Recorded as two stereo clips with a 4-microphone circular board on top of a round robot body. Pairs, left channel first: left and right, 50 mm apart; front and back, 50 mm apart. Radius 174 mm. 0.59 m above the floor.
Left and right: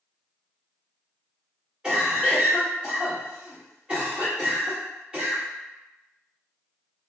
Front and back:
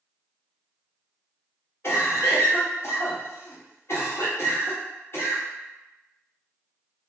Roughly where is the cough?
Ahead.